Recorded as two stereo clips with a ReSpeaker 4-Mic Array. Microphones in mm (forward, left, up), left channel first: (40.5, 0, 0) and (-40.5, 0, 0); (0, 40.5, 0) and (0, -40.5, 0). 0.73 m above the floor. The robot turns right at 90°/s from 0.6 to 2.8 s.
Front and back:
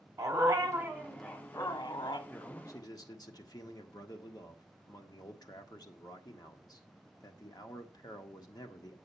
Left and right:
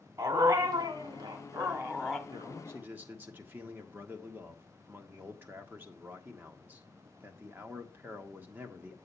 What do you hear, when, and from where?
0.2 s a dog barking: 140° right, 1.5 m; by 2.2 s 5° left, 1.5 m
2.3 s a man speaking: 70° right, 1.5 m; by 9.0 s 25° right, 1.5 m